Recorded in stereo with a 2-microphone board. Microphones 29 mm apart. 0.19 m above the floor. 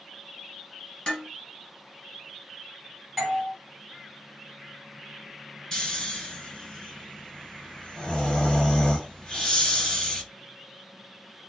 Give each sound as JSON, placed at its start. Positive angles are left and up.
{"t": 1.1, "sound": "dishes clattering", "side_deg": 25, "distance_m": 2.0}
{"t": 3.2, "sound": "a doorbell", "side_deg": -5, "distance_m": 2.0}
{"t": 5.7, "sound": "snoring", "side_deg": 20, "distance_m": 1.9}